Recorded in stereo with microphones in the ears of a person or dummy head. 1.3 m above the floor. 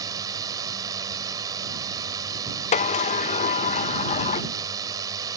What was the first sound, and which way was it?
A drone, 20° right (ahead or behind).